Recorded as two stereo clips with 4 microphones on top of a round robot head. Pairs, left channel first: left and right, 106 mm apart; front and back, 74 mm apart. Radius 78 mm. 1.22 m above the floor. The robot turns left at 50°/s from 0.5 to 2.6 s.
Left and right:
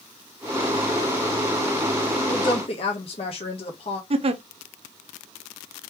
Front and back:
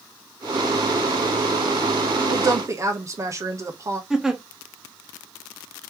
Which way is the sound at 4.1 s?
95° right.